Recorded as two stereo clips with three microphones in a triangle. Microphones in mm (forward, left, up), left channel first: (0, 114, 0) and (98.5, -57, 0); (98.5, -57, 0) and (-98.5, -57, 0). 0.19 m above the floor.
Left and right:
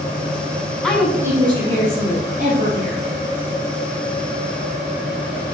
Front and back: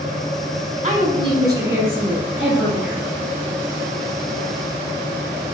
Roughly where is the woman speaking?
Behind right.